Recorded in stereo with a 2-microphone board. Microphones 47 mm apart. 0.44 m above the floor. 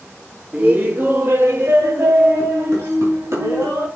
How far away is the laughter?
About 1.0 m.